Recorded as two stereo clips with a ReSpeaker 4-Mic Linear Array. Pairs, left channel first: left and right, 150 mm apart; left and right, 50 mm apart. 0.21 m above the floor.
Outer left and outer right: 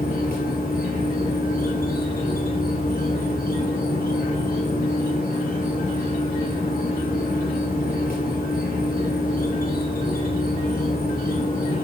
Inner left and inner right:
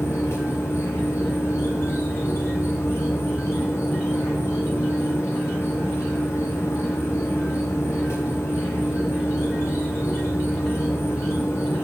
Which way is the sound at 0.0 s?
70° left (ahead or behind).